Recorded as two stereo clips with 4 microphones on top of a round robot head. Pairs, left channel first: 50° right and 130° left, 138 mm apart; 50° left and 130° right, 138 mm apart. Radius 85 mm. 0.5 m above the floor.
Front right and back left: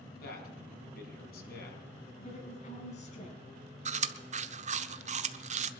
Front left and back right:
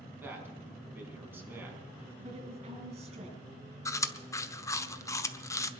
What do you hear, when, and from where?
0.2 s a man speaking: 55° right, 5 m
2.2 s a woman speaking: 90° right, 5.5 m
3.9 s chewing: 115° left, 1.0 m